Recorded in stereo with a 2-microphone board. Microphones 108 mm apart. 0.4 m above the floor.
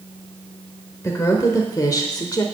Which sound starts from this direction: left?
A woman speaking, at 1.0 s.